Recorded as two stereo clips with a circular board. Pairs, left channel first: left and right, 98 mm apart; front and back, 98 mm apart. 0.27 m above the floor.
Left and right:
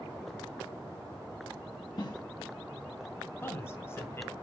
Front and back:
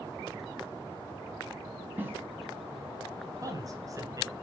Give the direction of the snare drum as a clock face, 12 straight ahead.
8 o'clock.